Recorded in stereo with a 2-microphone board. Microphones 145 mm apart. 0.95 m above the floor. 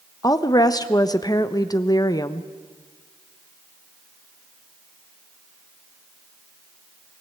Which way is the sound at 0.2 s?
25° left (ahead or behind).